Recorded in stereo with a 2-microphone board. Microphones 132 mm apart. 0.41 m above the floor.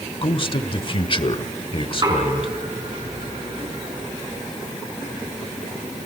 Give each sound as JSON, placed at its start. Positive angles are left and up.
{"t": 0.2, "sound": "a man speaking", "side_deg": 40, "distance_m": 1.2}
{"t": 1.9, "sound": "knocking", "side_deg": -35, "distance_m": 4.0}